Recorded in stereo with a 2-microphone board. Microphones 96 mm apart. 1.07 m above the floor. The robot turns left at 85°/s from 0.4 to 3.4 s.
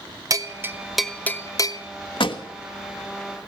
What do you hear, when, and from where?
0.3 s a bell: 40° right (ahead or behind), 0.6 m; by 1.8 s 50° left (ahead or behind), 0.6 m
2.2 s a pop: 70° left (ahead or behind), 1.2 m; by 2.4 s 50° left (ahead or behind), 1.2 m